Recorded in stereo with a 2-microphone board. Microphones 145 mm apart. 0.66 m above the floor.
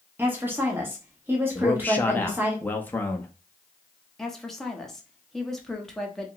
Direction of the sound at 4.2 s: Centre (ahead or behind).